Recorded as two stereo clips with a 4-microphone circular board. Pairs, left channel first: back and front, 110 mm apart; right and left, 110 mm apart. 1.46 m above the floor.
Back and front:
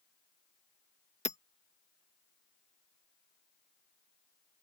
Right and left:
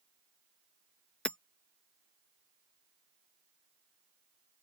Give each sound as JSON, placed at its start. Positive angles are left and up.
{"t": 1.2, "sound": "hammering", "azimuth_deg": -170}